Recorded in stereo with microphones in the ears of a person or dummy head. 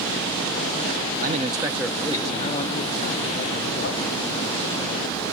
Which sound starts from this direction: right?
A man speaking, at 1.2 s.